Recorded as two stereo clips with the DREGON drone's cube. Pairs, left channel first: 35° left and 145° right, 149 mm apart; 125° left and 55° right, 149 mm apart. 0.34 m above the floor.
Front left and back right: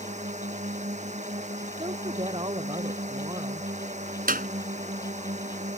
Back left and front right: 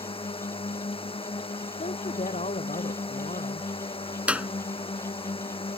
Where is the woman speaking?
160° left.